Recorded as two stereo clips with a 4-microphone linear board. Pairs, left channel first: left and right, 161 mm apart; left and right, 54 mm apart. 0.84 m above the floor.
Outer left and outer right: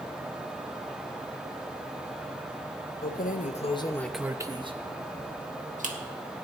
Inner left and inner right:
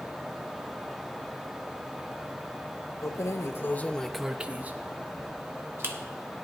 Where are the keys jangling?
65° left (ahead or behind), 0.8 m; by 6.0 s 55° right (ahead or behind), 1.5 m.